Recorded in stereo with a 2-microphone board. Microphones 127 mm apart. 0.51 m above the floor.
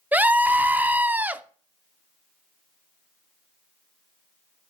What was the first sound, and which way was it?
A scream, 10° right (ahead or behind).